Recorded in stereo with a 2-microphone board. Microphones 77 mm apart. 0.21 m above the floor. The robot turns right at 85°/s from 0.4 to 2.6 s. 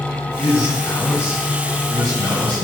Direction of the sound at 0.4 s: 120° left.